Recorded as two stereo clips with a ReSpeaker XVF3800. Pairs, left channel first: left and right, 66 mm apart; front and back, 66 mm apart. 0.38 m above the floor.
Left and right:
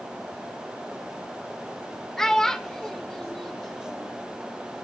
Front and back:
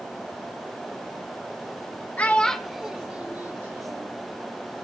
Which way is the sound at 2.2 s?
20° left.